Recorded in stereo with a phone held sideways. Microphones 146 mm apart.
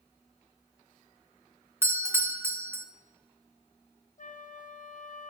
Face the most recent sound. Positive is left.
turn(degrees=60)  # may be behind; listen again after turning